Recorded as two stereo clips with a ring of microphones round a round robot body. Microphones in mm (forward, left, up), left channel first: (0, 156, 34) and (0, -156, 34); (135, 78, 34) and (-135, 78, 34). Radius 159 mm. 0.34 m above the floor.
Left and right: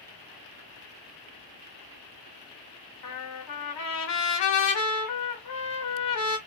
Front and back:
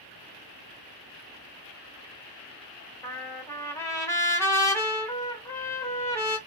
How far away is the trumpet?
About 1.0 m.